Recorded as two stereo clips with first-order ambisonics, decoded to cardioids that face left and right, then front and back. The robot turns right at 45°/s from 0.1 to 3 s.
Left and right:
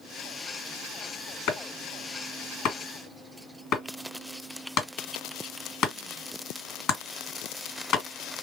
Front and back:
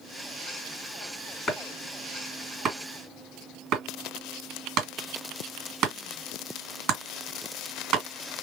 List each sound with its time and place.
1.5 s chopping: 70° left, 2 m; by 8.1 s 135° left, 2 m